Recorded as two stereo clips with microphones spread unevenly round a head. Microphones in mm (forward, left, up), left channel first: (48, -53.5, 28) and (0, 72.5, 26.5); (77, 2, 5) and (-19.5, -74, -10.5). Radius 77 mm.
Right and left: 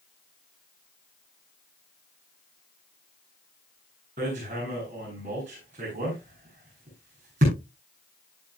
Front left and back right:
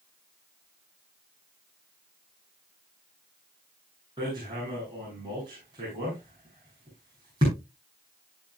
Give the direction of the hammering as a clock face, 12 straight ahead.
7 o'clock.